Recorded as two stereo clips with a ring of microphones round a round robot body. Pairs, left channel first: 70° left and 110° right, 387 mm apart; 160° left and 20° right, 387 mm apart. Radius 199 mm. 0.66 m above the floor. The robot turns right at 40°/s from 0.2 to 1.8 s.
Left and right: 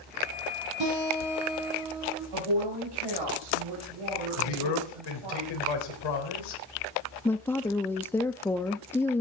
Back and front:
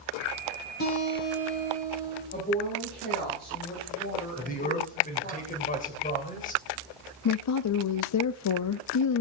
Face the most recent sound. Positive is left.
turn(degrees=150)